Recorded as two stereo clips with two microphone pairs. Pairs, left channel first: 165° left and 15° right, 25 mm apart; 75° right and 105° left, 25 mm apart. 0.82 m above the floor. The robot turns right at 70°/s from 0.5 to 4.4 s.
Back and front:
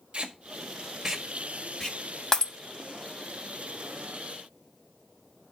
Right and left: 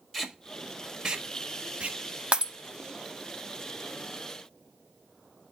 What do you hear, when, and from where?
0.1 s tape being pulled: straight ahead, 1.6 m; by 2.0 s 105° left, 1.6 m
2.3 s breaking glass: 105° left, 0.9 m; by 2.5 s 120° left, 0.9 m